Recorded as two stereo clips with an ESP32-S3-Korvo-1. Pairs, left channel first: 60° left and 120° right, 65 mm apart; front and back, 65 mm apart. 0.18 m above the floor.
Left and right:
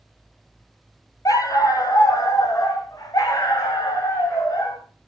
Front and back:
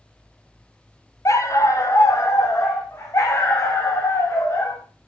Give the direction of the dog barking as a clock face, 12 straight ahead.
11 o'clock.